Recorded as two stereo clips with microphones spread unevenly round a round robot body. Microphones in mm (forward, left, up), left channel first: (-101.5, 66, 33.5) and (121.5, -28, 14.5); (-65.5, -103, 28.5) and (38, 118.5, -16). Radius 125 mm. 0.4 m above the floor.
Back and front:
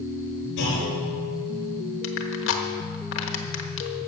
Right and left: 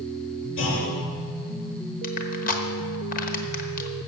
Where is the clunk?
155° right, 5 m.